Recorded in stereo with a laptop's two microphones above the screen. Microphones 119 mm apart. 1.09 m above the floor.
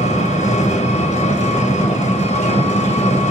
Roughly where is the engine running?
Left.